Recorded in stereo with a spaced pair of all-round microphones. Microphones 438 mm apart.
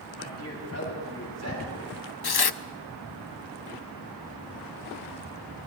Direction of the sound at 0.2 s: 35° left (ahead or behind).